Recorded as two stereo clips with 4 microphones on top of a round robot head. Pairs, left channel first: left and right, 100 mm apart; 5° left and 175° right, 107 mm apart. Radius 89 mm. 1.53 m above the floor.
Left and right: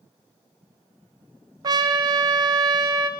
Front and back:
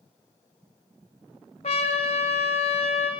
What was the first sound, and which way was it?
A trumpet, 45° right.